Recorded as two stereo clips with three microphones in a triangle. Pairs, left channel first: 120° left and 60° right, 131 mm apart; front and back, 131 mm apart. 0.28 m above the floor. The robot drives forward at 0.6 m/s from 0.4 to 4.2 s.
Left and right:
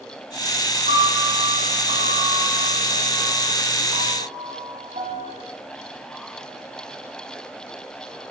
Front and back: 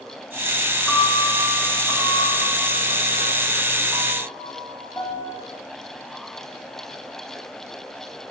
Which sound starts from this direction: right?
A piano, at 0.9 s.